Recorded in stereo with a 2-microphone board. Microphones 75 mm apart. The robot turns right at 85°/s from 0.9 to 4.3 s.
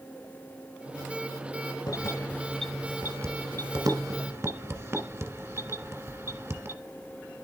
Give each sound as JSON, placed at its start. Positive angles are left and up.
{"t": 1.9, "sound": "keys jangling", "side_deg": 55, "distance_m": 1.3}